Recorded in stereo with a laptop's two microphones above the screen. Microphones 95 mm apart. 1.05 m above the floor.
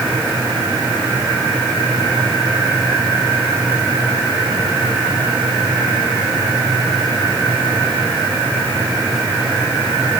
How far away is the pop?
No pop in this recording.